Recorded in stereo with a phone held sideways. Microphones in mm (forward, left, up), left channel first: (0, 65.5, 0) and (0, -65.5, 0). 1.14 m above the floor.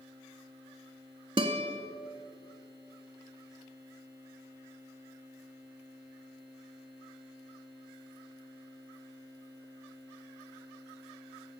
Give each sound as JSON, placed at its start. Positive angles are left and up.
{"t": 1.4, "sound": "a guitar", "side_deg": -40, "distance_m": 1.1}